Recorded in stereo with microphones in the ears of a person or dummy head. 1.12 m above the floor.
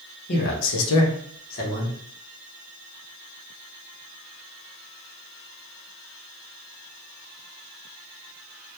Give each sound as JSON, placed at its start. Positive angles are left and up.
{"t": 0.3, "sound": "a man speaking", "side_deg": 45, "distance_m": 0.9}